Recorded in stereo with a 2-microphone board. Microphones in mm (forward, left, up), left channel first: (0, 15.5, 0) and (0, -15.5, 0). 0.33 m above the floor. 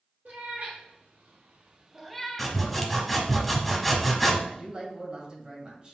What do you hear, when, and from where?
0.2 s a cat meowing: 85° right, 2 m; by 2.6 s 30° left (ahead or behind), 1.0 m
2.4 s sawing: centre (ahead or behind), 0.8 m
4.5 s a man speaking: 40° right (ahead or behind), 1.6 m